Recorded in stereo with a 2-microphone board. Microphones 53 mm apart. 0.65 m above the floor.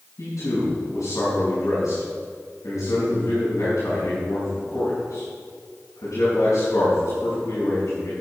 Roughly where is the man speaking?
Left.